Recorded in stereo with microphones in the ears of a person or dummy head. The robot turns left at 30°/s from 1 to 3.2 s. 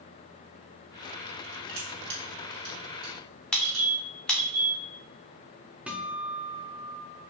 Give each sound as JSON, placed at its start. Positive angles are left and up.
{"t": 1.7, "sound": "crushing", "side_deg": -60, "distance_m": 2.5}
{"t": 3.5, "sound": "a squeak", "side_deg": 5, "distance_m": 0.9}
{"t": 5.9, "sound": "a guitar", "side_deg": -5, "distance_m": 0.6}